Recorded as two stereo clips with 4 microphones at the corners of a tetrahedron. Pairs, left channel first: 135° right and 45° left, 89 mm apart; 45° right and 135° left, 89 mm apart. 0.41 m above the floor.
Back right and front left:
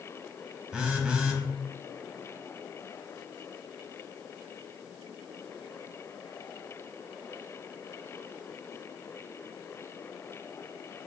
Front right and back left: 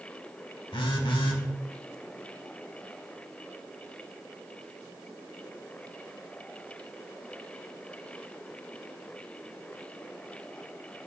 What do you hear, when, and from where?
0.7 s a phone buzzing: 35° right, 0.6 m